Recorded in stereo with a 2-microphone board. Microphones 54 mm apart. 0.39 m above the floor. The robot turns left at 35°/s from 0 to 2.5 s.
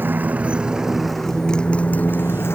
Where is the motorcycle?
140° right; by 2.6 s 130° left.